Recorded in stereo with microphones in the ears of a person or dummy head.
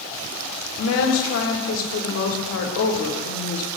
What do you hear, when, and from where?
0.8 s a woman speaking: 75° left (ahead or behind), 1.3 m